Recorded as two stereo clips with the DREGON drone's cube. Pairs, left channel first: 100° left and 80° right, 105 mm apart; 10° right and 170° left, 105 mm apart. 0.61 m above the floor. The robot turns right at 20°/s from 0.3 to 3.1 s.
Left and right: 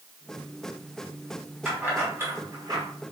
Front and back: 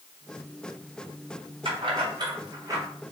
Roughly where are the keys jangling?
Behind right.